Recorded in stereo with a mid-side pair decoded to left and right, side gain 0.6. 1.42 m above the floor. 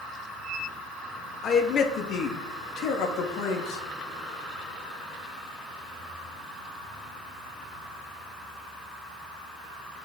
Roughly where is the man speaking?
Ahead left.